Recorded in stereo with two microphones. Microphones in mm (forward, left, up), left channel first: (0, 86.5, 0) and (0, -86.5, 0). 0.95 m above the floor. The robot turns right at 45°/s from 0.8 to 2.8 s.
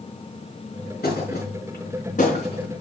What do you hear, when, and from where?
1.0 s a thud: 75° left (ahead or behind), 4.5 m; by 2.7 s 30° left (ahead or behind), 4.5 m